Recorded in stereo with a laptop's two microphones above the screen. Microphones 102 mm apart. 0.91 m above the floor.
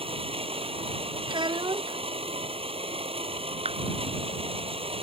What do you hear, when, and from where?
0.0 s a machine running: 70° right (ahead or behind)
1.3 s a child speaking: 50° right (ahead or behind)
3.6 s a clap: 85° right